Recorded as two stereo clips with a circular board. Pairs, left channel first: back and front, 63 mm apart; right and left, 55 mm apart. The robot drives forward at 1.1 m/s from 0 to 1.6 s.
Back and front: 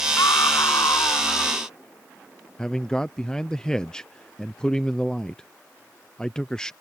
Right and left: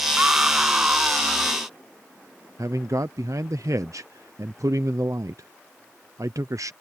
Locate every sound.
0.2 s a scream: 150° left
2.6 s a man speaking: 105° left